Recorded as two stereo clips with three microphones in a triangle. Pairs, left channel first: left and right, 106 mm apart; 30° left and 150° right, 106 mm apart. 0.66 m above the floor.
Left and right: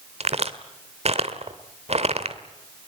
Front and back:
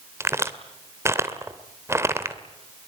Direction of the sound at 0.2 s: 85° right.